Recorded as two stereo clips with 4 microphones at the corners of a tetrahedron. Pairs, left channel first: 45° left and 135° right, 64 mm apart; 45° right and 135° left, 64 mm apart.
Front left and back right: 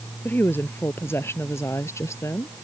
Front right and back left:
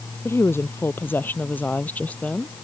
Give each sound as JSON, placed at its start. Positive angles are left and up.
{"t": 0.2, "sound": "a woman speaking", "azimuth_deg": -5}